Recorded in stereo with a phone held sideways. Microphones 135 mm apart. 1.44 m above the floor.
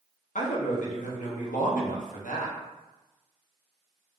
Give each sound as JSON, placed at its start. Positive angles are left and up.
{"t": 0.3, "sound": "a man speaking", "side_deg": 80, "distance_m": 1.1}